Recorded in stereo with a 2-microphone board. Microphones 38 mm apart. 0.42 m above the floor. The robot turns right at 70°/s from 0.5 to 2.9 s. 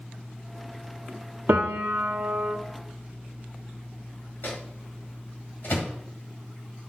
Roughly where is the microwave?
Left.